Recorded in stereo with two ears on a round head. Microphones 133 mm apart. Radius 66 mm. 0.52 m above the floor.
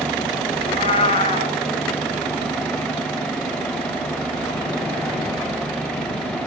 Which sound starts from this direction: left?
A cat meowing, at 0.6 s.